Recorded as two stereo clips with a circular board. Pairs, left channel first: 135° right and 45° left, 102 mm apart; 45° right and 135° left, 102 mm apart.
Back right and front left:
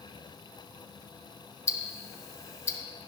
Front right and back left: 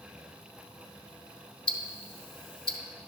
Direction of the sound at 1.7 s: 75° right.